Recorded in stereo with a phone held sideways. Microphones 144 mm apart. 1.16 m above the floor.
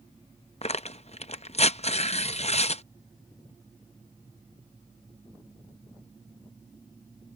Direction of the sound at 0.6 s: 50° left (ahead or behind).